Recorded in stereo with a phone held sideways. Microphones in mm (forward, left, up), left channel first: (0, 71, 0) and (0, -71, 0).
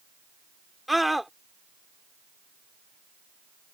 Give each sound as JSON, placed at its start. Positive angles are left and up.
{"t": 0.9, "sound": "a scream", "side_deg": 0}